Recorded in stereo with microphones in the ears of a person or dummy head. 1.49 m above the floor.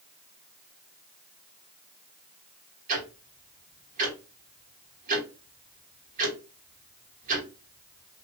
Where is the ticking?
45° right (ahead or behind), 1.8 m.